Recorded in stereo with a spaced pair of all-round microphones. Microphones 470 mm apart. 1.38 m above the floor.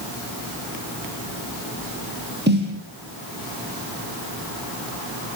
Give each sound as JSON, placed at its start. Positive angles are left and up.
{"t": 2.5, "sound": "a snare drum", "side_deg": -20, "distance_m": 10.0}